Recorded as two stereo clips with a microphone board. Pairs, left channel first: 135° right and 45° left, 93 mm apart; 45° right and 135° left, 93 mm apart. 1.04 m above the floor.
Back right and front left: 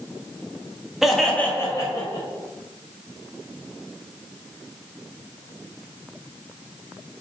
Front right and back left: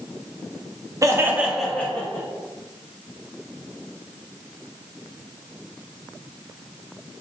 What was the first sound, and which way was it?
Laughter, 125° left.